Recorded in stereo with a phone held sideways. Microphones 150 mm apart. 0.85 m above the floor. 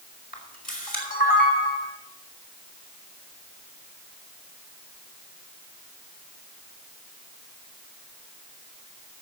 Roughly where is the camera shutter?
Left.